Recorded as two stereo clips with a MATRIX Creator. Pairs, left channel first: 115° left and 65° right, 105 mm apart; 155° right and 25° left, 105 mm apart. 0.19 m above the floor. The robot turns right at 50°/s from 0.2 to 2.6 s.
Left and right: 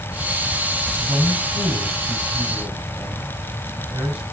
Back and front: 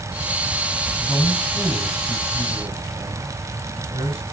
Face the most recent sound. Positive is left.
turn(degrees=15)